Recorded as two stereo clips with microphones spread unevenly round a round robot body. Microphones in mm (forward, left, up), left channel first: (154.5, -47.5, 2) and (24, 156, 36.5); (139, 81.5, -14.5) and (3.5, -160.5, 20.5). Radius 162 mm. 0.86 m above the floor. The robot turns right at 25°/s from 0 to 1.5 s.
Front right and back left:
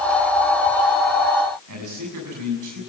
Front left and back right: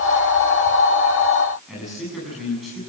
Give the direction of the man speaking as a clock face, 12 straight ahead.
7 o'clock.